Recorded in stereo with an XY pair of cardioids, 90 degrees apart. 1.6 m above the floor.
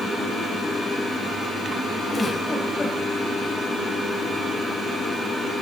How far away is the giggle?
About 4 m.